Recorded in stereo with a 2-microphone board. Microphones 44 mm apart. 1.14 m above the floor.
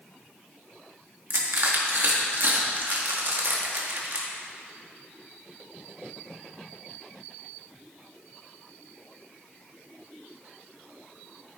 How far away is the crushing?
About 1.8 m.